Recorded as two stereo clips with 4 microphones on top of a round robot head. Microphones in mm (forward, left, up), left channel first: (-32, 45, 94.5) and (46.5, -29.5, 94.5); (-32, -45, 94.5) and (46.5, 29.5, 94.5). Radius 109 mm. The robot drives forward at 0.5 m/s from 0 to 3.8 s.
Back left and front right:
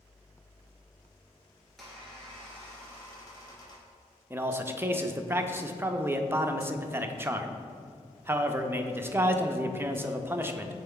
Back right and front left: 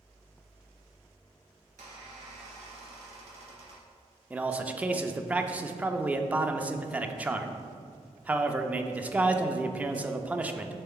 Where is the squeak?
45° left, 1.8 m; by 3.9 s 85° left, 1.4 m.